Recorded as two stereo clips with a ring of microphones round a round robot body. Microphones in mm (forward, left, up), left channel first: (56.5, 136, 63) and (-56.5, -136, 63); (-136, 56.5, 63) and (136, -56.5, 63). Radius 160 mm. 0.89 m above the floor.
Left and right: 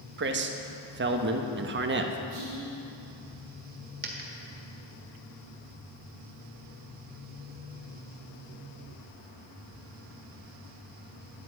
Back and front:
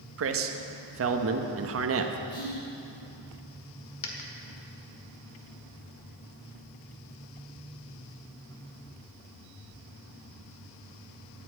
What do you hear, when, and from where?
0.2 s a man speaking: 60° right, 1.2 m
2.3 s whispering: 150° right, 4.5 m
4.0 s a dropped coin: 170° right, 1.6 m